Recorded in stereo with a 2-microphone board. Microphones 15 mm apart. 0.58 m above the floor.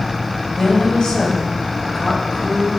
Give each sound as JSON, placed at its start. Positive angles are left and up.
{"t": 0.6, "sound": "a woman speaking", "side_deg": 55, "distance_m": 2.5}